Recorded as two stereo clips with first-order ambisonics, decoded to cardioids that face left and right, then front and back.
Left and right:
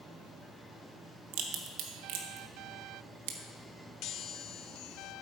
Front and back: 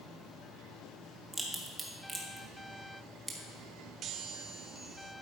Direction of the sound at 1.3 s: 95° right.